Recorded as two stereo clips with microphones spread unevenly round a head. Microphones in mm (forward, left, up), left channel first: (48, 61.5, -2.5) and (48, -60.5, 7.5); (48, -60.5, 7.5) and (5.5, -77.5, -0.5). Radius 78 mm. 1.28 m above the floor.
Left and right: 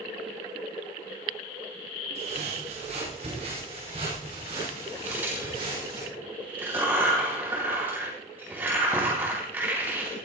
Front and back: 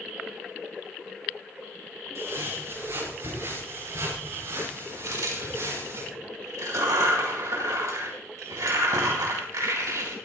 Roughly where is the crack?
Behind.